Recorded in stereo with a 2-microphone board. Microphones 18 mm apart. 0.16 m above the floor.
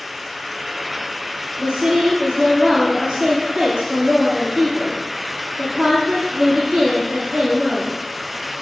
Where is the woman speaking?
50° right (ahead or behind), 4 m.